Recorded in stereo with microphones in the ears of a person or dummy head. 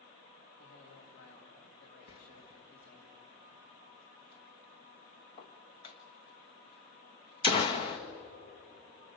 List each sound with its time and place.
0.6 s a man speaking: 50° left (ahead or behind), 3.5 m
2.1 s a door slam: 35° left (ahead or behind), 1.3 m